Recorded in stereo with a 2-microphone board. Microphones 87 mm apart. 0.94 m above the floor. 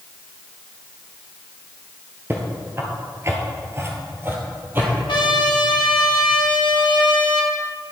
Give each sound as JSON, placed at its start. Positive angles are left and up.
{"t": 2.3, "sound": "footsteps", "side_deg": -25, "distance_m": 1.1}
{"t": 5.1, "sound": "a trumpet", "side_deg": 60, "distance_m": 1.1}